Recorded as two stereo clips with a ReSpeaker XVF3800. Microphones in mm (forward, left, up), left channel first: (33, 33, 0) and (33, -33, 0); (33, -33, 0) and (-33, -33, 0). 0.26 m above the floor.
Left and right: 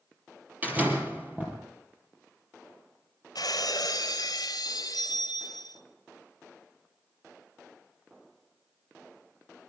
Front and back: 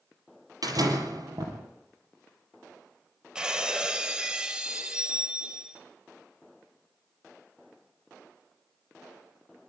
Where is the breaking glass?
100° left, 2.5 m.